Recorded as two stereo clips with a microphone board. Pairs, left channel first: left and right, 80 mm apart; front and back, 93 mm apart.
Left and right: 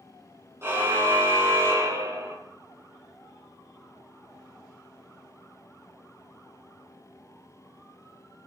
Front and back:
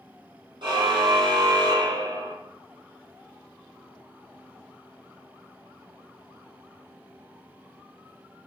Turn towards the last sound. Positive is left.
turn(degrees=-140)